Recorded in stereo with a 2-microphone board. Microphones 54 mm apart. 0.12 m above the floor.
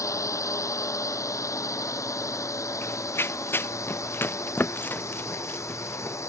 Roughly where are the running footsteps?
Left.